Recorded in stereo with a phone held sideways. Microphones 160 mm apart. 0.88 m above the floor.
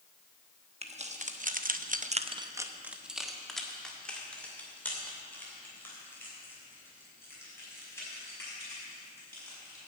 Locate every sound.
0.8 s keys jangling: 40° right (ahead or behind), 1.1 m; by 9.8 s 15° left (ahead or behind), 6.5 m